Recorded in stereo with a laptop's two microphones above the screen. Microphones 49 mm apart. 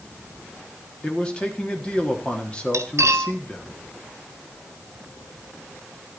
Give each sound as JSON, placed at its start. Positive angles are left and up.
{"t": 1.0, "sound": "a man speaking", "side_deg": 20, "distance_m": 1.4}
{"t": 2.7, "sound": "cutlery clinking", "side_deg": -75, "distance_m": 1.0}